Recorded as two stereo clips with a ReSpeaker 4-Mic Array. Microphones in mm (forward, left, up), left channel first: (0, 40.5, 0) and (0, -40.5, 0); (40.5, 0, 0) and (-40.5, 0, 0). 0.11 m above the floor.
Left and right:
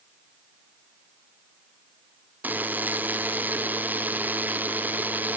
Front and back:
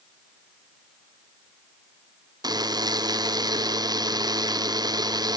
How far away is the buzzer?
About 1.0 m.